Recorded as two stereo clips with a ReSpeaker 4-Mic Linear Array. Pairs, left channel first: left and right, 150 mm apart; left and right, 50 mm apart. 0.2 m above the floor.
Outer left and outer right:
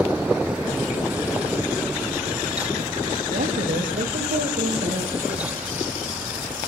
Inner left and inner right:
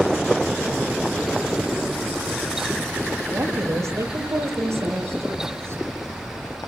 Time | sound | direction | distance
3.3 | a woman speaking | 70° right (ahead or behind) | 7.5 m